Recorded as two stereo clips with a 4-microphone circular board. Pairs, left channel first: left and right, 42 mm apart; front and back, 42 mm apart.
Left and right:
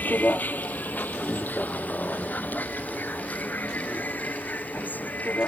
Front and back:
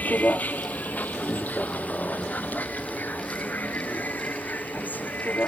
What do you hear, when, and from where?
0.0 s a vehicle: 45° left